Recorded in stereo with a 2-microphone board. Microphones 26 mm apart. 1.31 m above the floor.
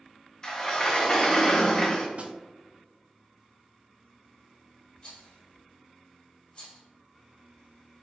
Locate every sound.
0.4 s a sliding door: 20° left (ahead or behind), 0.7 m
2.2 s a snare drum: 50° right (ahead or behind), 0.5 m
5.0 s a rattle: 35° left (ahead or behind), 1.6 m